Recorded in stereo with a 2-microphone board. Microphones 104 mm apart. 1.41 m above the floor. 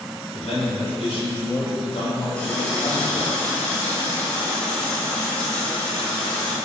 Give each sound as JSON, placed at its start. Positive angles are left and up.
{"t": 0.3, "sound": "a man speaking", "side_deg": 85, "distance_m": 3.5}
{"t": 2.4, "sound": "a running tap", "side_deg": 10, "distance_m": 3.0}